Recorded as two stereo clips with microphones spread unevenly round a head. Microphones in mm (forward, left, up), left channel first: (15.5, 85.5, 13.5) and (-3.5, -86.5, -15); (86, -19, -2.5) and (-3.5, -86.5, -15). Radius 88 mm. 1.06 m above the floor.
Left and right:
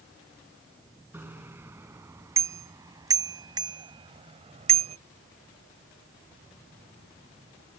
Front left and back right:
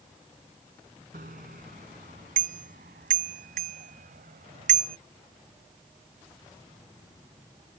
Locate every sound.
1.1 s a bicycle bell: 175° right; by 5.0 s 150° right